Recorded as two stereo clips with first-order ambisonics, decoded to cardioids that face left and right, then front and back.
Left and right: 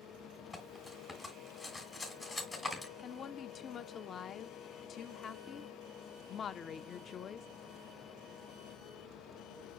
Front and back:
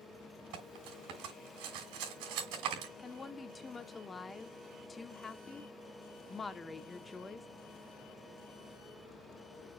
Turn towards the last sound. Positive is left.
turn(degrees=60)